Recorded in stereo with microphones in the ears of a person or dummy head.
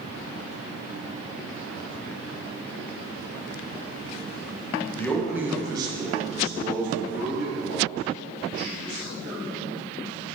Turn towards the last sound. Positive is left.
turn(degrees=-70)  # may be behind; listen again after turning